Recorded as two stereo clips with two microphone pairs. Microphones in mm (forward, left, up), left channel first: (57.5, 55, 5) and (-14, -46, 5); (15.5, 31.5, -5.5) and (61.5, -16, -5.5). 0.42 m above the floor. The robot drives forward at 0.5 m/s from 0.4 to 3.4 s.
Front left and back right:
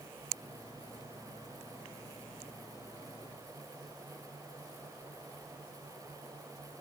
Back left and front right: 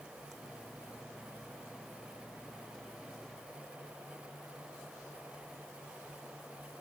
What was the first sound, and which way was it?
Only background noise.